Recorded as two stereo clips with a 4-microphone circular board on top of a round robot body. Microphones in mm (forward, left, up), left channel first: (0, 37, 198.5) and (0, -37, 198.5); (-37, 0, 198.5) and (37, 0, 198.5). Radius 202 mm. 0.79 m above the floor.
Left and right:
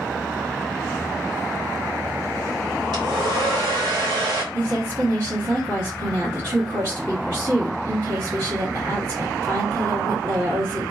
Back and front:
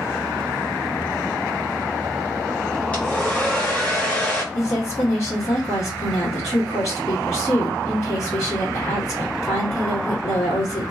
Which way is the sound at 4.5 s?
130° right.